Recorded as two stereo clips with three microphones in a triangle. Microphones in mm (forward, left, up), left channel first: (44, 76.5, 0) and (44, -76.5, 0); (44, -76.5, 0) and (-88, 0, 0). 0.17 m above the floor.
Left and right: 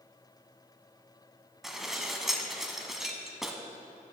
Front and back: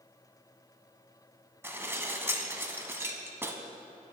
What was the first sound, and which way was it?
Dishes clattering, 175° right.